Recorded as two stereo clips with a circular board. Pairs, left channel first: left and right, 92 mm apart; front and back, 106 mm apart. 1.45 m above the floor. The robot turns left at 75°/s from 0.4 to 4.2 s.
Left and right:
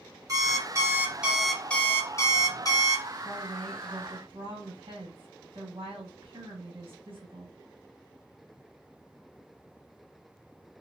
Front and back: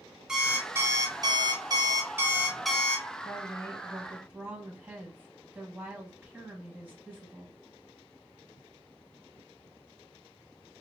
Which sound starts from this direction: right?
An alarm clock, at 0.3 s.